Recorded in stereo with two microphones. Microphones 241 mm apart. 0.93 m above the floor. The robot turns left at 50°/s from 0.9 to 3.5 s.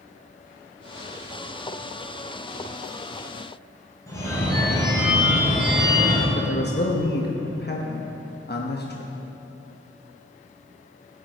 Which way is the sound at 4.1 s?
10° left (ahead or behind).